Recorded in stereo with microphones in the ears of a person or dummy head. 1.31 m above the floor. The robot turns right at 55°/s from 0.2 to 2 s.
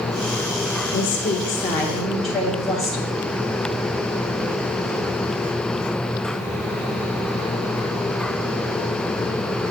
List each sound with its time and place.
0.9 s a woman speaking: 125° left, 0.7 m; by 3.1 s 175° right, 0.7 m